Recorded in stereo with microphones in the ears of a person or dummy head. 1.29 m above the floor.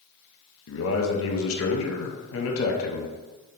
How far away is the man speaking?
About 0.6 m.